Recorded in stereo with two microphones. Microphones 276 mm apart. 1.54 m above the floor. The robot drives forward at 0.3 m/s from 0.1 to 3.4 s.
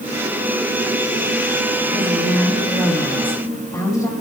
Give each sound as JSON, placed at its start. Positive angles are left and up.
{"t": 1.9, "sound": "a woman speaking", "side_deg": 10, "distance_m": 4.0}